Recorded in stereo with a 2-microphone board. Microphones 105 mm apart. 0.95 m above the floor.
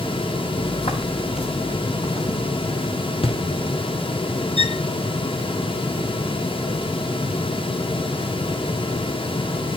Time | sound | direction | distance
0.6 | footsteps | 60° left (ahead or behind) | 3.5 m
3.2 | a thud | 60° left (ahead or behind) | 3 m
4.6 | a violin | 70° left (ahead or behind) | 0.6 m